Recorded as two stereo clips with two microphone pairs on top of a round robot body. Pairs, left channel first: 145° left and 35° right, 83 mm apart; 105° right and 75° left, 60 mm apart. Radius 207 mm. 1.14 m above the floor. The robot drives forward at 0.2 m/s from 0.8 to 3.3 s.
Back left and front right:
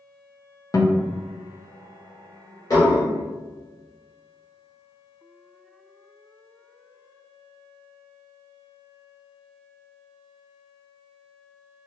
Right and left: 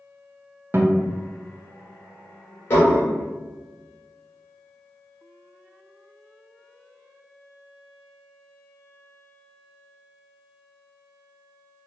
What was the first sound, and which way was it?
A guitar, 115° left.